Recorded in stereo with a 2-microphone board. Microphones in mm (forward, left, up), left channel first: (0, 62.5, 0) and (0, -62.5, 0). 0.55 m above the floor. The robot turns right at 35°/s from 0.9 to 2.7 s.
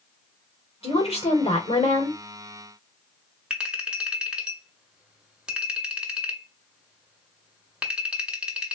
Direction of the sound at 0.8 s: 60° left.